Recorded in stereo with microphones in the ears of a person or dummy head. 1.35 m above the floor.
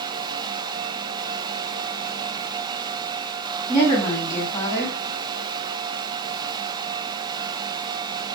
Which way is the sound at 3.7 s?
15° left (ahead or behind).